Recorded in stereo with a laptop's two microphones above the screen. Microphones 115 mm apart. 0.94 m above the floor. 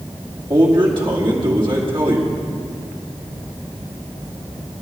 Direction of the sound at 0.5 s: 50° right (ahead or behind).